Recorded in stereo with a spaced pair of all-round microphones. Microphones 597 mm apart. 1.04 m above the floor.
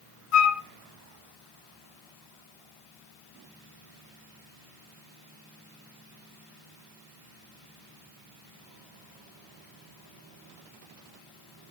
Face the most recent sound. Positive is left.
turn(degrees=65)  # may be behind; listen again after turning